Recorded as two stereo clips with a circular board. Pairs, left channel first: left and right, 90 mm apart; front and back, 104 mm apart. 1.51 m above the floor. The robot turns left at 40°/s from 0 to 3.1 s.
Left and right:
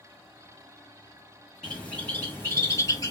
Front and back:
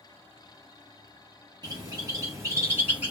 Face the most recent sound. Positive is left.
turn(degrees=110)